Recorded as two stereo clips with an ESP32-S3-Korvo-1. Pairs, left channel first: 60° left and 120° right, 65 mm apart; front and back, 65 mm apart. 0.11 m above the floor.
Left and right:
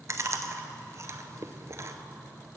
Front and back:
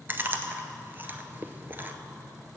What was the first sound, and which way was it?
Chewing, 130° right.